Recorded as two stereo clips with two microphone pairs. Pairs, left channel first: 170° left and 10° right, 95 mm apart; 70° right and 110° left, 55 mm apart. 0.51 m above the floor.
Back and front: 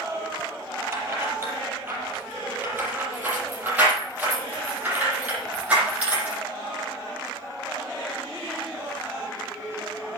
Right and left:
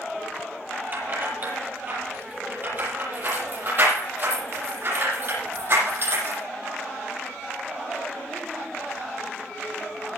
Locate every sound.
0.9 s keys jangling: 55° left, 8.5 m; by 6.4 s 65° left, 12.5 m